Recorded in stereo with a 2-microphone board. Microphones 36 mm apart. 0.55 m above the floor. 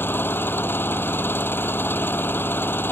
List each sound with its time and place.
0.0 s an engine running: 85° left